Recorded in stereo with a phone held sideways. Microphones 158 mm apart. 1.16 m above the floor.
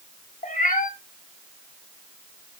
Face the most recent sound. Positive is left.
turn(degrees=55)  # may be behind; listen again after turning